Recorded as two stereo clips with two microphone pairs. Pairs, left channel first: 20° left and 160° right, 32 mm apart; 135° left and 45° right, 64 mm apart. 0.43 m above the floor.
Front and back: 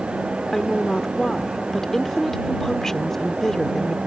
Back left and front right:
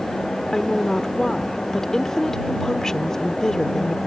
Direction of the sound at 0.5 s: 70° left.